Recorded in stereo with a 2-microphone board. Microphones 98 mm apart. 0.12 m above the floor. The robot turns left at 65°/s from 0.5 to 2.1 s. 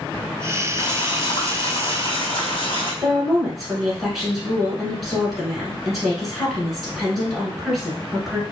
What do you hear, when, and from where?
0.8 s boiling: 145° left, 1.2 m; by 2.9 s 55° left, 1.2 m
3.0 s a woman speaking: centre (ahead or behind), 1.2 m